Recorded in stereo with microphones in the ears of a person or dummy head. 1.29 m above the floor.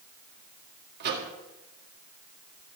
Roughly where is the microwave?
Right.